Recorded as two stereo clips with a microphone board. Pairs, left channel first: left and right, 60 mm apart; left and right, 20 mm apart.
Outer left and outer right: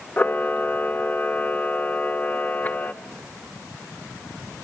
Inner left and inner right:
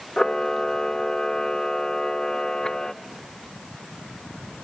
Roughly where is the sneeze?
No sneeze in this recording.